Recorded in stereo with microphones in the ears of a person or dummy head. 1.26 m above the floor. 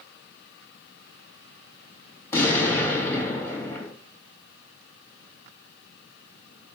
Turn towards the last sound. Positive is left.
turn(degrees=15)  # may be behind; listen again after turning